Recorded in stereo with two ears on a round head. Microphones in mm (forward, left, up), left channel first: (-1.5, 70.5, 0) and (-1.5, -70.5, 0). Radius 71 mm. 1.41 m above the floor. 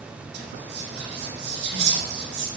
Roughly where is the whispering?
Right.